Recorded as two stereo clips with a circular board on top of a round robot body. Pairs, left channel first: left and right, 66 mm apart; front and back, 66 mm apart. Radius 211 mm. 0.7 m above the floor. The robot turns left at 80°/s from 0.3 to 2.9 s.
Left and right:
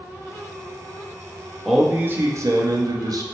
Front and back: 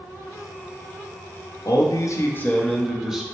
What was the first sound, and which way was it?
A man speaking, 5° left.